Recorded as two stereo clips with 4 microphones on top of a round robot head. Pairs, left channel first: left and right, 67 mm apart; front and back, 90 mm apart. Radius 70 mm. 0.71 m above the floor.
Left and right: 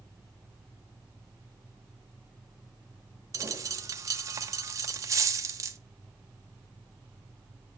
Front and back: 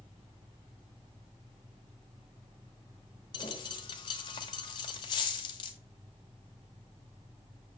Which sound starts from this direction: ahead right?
A dropped coin, at 3.3 s.